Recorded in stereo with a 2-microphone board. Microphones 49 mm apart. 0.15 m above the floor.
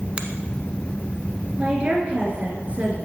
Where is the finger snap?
25° right (ahead or behind), 1.1 m.